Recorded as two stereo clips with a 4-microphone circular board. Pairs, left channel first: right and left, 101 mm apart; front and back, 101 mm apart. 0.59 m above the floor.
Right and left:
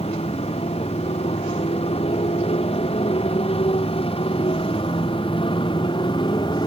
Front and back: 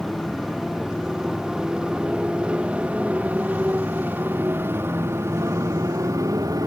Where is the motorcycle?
90° right; by 6.7 s 130° right.